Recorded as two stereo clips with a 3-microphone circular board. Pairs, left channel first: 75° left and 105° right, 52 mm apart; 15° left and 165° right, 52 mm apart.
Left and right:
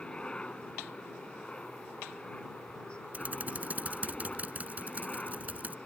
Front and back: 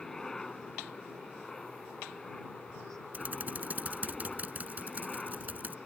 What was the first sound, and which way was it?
A helicopter, 75° left.